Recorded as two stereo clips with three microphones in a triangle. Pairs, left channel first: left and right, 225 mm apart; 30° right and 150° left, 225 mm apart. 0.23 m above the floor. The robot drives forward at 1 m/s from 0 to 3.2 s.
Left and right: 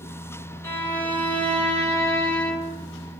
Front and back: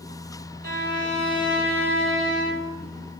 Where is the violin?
165° left, 1.2 m; by 2.8 s 175° left, 3 m.